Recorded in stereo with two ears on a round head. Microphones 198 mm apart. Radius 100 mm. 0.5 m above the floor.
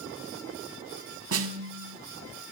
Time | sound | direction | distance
1.3 | a snare drum | 70° right (ahead or behind) | 0.8 m